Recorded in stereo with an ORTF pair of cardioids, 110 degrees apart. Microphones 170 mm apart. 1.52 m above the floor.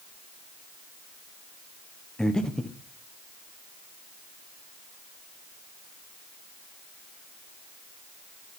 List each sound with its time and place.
2.2 s breathing: 5° left, 1.1 m